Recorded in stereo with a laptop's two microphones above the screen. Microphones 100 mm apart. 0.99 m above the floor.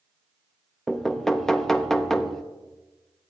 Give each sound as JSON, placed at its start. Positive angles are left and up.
{"t": 0.9, "sound": "knocking", "side_deg": 5, "distance_m": 0.6}